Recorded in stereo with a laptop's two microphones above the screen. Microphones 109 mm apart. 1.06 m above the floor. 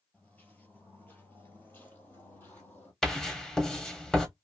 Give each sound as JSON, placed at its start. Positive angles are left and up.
{"t": 0.1, "sound": "footsteps", "side_deg": 15, "distance_m": 1.1}
{"t": 3.0, "sound": "writing", "side_deg": 5, "distance_m": 0.7}